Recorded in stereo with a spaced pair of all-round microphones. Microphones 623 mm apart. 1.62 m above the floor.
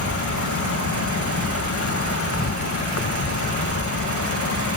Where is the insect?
20° left (ahead or behind).